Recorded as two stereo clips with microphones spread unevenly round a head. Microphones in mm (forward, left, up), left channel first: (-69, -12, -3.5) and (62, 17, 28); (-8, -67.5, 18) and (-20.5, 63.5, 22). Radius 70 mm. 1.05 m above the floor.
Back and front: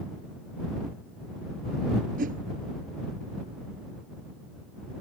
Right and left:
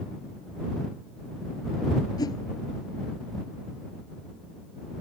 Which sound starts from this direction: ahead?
A whoosh, at 2.2 s.